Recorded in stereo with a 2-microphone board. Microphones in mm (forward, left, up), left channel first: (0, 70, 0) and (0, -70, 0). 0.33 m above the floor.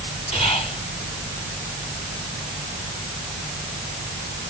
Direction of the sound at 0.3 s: 45° left (ahead or behind).